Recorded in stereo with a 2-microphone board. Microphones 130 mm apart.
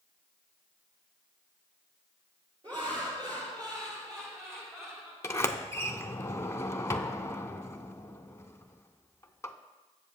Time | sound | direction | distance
2.6 | laughter | 40° right (ahead or behind) | 5 m
5.2 | a sliding door | 20° left (ahead or behind) | 0.6 m